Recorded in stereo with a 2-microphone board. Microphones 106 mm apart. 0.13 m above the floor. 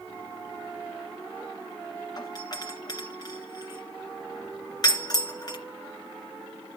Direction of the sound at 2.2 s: 40° left (ahead or behind).